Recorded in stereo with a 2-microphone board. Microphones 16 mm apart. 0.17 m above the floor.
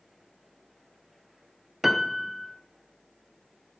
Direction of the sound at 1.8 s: 10° right (ahead or behind).